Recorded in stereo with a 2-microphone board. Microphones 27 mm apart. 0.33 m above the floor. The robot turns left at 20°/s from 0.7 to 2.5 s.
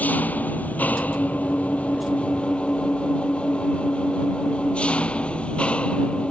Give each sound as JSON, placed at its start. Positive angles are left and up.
{"t": 0.0, "sound": "an engine running", "azimuth_deg": 80}